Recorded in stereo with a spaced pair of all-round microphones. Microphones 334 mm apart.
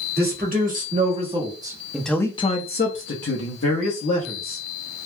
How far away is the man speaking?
About 1.5 m.